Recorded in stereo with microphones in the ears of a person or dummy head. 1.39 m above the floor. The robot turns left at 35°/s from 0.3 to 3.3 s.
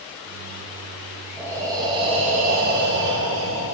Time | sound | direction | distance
1.4 | breathing | 10° right | 0.7 m